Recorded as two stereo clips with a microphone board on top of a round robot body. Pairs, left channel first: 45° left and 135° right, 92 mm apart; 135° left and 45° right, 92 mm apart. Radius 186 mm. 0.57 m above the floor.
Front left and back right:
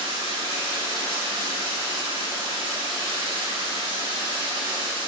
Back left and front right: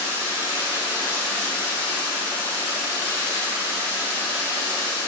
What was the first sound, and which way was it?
Running water, 105° right.